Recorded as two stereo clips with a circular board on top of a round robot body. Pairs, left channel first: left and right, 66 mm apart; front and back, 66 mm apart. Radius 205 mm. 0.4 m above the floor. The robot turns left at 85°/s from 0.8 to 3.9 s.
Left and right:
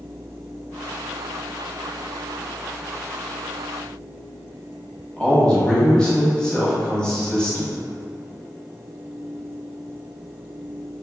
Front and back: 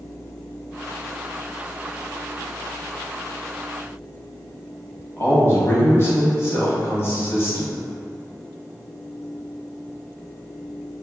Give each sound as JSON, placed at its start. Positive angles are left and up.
{"t": 5.2, "sound": "a man speaking", "azimuth_deg": 20, "distance_m": 1.2}